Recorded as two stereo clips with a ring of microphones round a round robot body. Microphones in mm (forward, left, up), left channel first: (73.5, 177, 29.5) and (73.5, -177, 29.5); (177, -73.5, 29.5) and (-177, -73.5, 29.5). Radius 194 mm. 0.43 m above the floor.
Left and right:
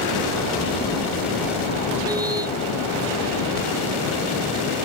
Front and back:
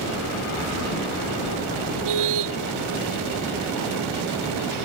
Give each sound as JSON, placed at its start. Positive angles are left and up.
{"t": 2.0, "sound": "a car horn", "azimuth_deg": -170}